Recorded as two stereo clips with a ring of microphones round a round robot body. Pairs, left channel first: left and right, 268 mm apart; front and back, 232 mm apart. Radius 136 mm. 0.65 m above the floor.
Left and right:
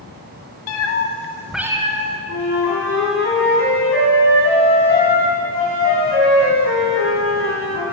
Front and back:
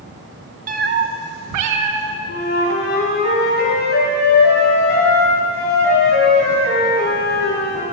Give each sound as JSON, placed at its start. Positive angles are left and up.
{"t": 0.7, "sound": "a cat meowing", "azimuth_deg": 125, "distance_m": 0.8}
{"t": 2.3, "sound": "a flute", "azimuth_deg": 45, "distance_m": 2.5}